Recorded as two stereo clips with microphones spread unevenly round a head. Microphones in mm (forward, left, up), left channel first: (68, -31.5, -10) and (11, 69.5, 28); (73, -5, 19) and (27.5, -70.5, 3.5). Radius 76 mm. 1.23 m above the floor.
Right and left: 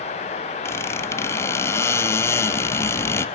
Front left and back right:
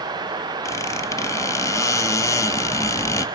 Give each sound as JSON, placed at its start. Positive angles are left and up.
{"t": 0.7, "sound": "a squeak", "azimuth_deg": 15, "distance_m": 1.0}